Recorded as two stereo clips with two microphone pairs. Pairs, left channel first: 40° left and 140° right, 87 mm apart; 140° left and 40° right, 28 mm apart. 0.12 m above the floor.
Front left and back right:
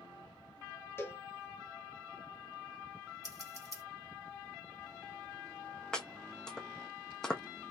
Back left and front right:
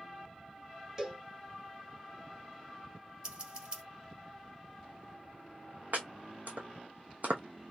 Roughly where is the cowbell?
Ahead.